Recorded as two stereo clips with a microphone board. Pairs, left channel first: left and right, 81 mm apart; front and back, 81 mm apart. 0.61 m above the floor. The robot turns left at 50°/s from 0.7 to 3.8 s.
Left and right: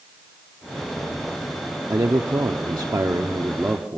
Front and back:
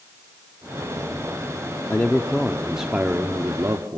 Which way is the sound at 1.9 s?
55° right.